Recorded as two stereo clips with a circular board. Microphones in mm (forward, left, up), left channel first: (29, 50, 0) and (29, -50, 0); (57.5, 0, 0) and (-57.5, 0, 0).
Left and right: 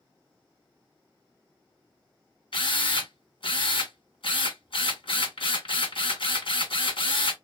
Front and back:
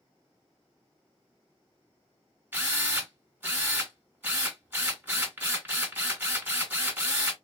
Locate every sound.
2.5 s a drill: 110° left, 1.9 m